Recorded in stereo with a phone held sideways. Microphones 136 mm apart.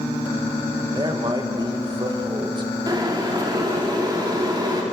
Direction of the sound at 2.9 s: 30° right (ahead or behind).